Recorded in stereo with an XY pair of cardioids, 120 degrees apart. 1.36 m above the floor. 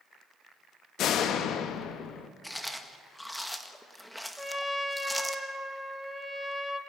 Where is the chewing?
5° left, 1.5 m.